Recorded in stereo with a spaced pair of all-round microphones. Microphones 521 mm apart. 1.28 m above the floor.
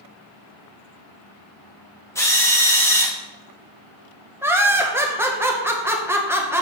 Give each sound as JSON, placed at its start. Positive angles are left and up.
{"t": 2.1, "sound": "a drill", "side_deg": 5, "distance_m": 1.2}
{"t": 4.4, "sound": "laughter", "side_deg": -5, "distance_m": 1.2}